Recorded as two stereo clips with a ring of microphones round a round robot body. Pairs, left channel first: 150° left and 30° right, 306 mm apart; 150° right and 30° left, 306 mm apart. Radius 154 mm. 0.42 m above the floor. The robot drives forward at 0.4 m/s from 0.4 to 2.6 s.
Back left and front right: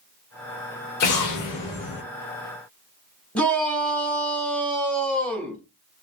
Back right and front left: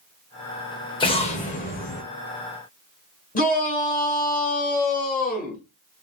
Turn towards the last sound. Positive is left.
turn(degrees=-125)